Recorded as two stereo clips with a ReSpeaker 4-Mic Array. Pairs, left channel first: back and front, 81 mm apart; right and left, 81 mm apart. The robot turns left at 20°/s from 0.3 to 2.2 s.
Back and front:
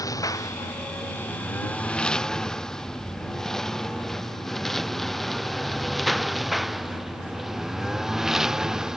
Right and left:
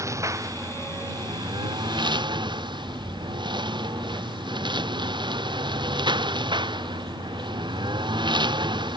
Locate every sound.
0.0 s a lawn mower: 140° left; by 9.0 s 80° left